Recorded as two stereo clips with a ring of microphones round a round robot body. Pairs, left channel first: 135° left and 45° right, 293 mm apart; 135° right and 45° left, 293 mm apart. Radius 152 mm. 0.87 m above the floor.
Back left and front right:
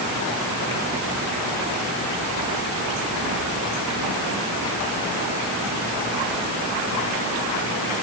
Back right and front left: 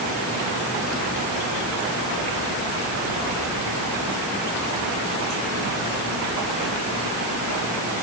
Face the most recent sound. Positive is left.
No sound to turn to.